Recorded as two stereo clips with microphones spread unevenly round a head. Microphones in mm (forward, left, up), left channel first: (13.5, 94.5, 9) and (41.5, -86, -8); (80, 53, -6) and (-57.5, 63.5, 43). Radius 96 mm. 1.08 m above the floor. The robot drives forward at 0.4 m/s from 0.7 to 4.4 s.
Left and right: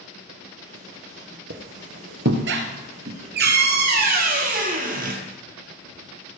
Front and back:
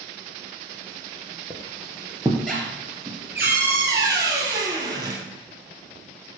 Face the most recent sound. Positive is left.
turn(degrees=-130)